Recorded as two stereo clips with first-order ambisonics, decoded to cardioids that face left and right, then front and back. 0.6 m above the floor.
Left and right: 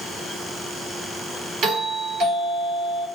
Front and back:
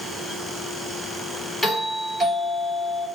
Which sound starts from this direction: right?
A doorbell, at 1.6 s.